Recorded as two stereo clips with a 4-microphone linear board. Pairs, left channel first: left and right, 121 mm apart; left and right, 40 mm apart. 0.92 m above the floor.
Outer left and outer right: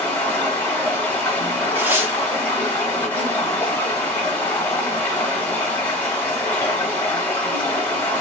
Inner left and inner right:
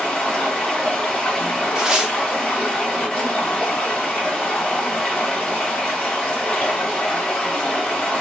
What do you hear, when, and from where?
0.0 s running water: 15° left (ahead or behind), 1.2 m
1.8 s tearing paper: 15° right (ahead or behind), 0.7 m